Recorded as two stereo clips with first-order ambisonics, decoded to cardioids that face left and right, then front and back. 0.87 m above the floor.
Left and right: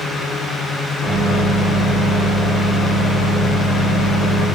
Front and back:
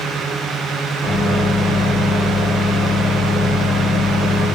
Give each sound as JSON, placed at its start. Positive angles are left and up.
{"t": 1.0, "sound": "a microwave", "azimuth_deg": 90, "distance_m": 1.3}